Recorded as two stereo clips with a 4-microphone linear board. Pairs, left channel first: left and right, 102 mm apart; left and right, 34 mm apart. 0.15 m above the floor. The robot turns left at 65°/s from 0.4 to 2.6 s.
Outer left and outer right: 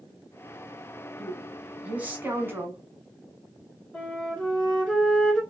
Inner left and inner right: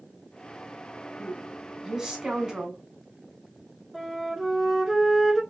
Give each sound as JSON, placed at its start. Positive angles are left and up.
{"t": 1.2, "sound": "a woman speaking", "side_deg": 0, "distance_m": 1.0}
{"t": 3.9, "sound": "a flute", "side_deg": 15, "distance_m": 1.2}